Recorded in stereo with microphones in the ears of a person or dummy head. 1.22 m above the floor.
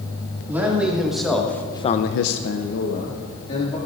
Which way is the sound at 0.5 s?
10° right (ahead or behind).